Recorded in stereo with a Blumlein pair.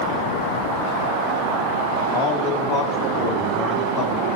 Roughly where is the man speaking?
Ahead left.